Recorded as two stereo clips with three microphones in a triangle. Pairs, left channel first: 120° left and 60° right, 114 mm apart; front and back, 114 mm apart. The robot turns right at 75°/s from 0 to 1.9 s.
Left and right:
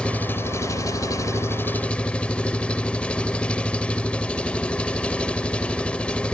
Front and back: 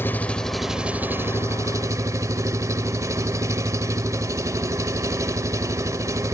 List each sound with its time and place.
0.0 s an engine running: 45° left, 1.1 m; by 6.3 s 170° right, 1.1 m